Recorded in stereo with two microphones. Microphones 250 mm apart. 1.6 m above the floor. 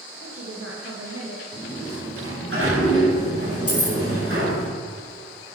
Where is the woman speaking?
60° right (ahead or behind), 1.6 m.